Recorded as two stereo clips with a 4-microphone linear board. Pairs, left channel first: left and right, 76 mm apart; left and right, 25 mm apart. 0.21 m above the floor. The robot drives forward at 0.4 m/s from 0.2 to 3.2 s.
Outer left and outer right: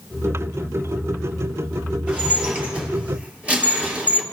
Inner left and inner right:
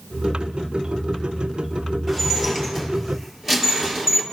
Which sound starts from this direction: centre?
Dishes clattering, at 2.1 s.